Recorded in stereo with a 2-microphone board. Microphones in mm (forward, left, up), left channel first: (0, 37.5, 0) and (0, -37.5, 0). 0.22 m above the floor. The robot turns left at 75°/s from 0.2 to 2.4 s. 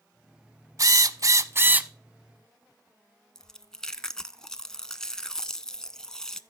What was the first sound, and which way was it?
A drill, 70° right.